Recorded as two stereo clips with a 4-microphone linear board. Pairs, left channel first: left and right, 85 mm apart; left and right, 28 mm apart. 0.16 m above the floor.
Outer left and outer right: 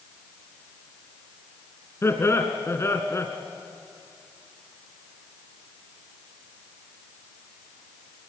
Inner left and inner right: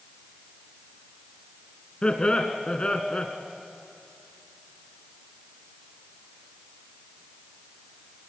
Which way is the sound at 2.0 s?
30° left (ahead or behind).